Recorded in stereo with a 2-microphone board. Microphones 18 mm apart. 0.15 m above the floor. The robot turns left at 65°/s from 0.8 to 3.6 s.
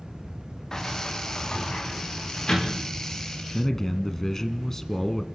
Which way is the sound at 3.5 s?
20° left (ahead or behind).